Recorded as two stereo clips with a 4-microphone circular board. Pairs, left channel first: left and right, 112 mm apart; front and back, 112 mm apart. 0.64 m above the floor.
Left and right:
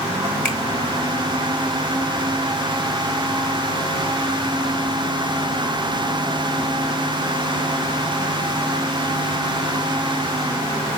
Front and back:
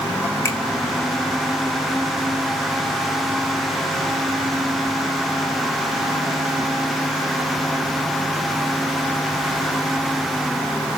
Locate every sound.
0.5 s a finger snap: 25° left, 1.1 m